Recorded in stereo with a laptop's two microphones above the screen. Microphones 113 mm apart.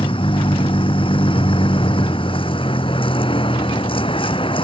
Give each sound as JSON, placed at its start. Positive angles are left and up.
{"t": 0.0, "sound": "a vehicle", "side_deg": 50}